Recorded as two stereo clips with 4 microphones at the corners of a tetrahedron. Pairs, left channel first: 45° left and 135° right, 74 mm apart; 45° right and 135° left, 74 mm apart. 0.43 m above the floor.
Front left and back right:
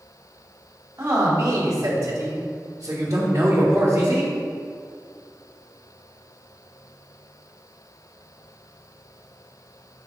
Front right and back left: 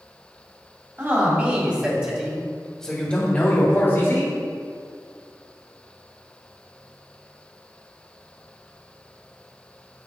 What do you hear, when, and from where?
1.0 s a man speaking: straight behind, 2.5 m; by 4.3 s 75° right, 2 m